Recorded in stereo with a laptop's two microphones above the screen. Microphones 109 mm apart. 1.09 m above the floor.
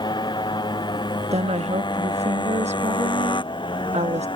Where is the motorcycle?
45° left (ahead or behind); by 4.3 s 50° left (ahead or behind).